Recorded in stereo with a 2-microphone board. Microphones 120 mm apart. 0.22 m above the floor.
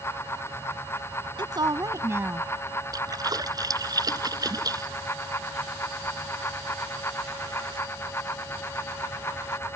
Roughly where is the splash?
Right.